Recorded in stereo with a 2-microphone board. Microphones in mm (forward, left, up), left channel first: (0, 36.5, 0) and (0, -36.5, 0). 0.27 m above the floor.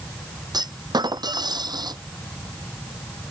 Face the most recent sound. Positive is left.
turn(degrees=-70)  # may be behind; listen again after turning